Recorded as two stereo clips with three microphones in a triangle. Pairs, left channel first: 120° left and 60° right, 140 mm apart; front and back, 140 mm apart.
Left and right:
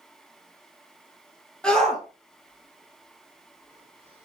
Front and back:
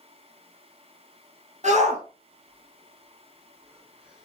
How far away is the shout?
About 3 m.